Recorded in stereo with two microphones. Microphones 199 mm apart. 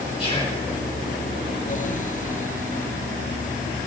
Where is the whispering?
30° left (ahead or behind), 1.3 m.